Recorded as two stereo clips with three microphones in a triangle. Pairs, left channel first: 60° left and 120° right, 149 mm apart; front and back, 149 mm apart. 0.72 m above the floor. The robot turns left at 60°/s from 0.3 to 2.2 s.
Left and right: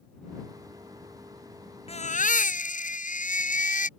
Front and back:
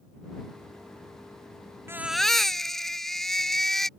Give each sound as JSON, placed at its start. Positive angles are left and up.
{"t": 1.9, "sound": "a baby crying", "azimuth_deg": 105}